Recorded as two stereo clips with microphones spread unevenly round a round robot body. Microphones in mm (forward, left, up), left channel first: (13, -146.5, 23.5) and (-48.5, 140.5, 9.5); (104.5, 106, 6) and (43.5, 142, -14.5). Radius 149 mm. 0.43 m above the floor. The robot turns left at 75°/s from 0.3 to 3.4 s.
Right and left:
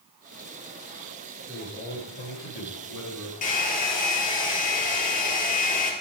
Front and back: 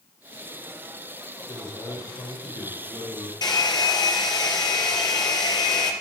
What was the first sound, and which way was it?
A man speaking, 20° left.